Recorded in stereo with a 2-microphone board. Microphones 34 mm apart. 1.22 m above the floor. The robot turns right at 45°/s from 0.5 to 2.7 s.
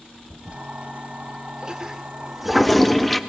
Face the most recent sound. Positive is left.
turn(degrees=5)  # may be behind; listen again after turning